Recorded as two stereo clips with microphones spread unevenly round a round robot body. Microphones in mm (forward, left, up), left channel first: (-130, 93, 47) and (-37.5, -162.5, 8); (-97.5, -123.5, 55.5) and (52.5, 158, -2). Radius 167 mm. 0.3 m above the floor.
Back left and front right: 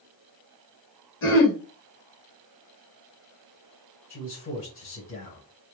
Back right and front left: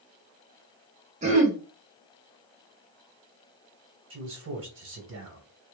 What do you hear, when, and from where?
1.2 s throat clearing: 95° left, 1.4 m
4.1 s a man speaking: 75° left, 1.6 m